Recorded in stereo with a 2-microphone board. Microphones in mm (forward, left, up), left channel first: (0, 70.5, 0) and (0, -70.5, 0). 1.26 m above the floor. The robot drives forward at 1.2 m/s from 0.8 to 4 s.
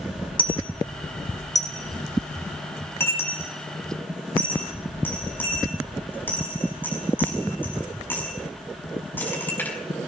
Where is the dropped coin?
35° left (ahead or behind), 2.5 m; by 9.8 s 15° left (ahead or behind), 6 m.